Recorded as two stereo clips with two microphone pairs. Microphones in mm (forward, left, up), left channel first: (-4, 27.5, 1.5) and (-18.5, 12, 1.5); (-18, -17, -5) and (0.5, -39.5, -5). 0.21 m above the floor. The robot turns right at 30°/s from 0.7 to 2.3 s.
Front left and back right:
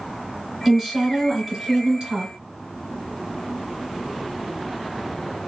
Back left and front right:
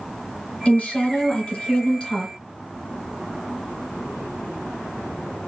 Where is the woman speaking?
160° left, 1.8 m; by 2.3 s 155° right, 1.8 m.